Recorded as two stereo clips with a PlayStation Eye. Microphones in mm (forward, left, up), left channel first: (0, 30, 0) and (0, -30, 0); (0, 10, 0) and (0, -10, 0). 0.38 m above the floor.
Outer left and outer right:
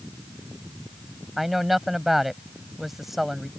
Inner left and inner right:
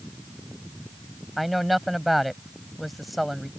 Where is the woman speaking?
Centre (ahead or behind).